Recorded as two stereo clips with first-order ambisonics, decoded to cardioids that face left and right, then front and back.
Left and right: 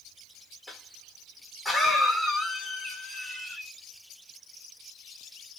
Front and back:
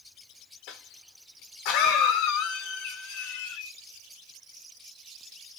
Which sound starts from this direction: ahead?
A cough, at 0.7 s.